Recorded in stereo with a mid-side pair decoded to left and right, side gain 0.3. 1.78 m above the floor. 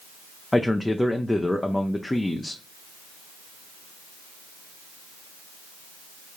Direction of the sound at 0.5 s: 20° left.